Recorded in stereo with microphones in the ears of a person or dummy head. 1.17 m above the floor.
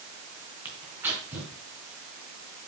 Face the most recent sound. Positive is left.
turn(degrees=-10)  # may be behind; listen again after turning